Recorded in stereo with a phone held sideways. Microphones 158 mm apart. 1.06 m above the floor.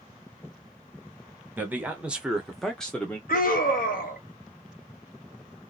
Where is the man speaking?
10° right (ahead or behind), 1.0 m; by 3.2 s 10° left (ahead or behind), 0.9 m.